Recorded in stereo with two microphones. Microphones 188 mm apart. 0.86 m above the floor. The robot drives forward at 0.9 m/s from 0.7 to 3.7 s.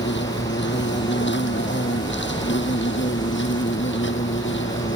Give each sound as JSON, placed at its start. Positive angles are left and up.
{"t": 0.0, "sound": "an insect", "side_deg": 75}